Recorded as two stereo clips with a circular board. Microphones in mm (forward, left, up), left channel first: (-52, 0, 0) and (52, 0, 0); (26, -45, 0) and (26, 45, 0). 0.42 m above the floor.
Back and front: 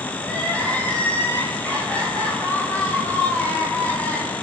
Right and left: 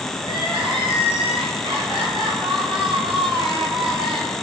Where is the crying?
105° left, 8 m.